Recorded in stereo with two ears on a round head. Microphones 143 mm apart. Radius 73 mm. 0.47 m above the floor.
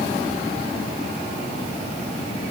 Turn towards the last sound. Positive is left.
No sound to turn to.